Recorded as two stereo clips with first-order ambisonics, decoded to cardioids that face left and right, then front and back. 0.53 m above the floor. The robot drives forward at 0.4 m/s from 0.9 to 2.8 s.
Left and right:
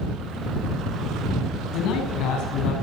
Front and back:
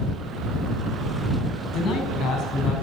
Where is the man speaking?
55° left, 4.5 m; by 2.7 s 60° left, 4 m.